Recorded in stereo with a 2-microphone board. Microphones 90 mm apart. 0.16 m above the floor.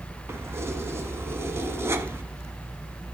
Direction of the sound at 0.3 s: 30° right (ahead or behind).